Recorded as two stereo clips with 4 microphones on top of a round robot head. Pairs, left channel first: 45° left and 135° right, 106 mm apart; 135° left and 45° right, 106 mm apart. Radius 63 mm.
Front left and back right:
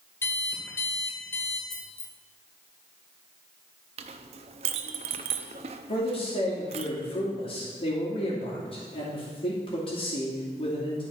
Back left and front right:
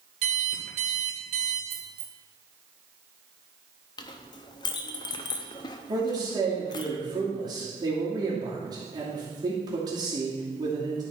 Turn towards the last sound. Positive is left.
turn(degrees=10)